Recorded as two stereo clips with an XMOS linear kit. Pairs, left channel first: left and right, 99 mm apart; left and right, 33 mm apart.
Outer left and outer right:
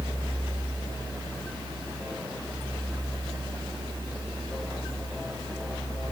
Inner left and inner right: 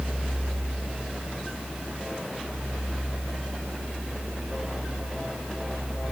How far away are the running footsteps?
I don't hear running footsteps.